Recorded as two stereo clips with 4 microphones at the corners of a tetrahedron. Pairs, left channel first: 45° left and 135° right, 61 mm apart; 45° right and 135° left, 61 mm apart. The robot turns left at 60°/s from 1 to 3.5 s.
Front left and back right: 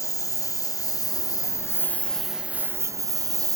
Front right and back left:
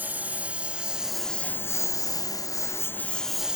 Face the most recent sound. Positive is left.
turn(degrees=-150)